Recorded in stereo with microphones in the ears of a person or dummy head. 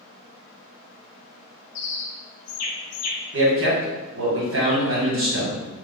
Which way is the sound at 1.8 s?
70° left (ahead or behind).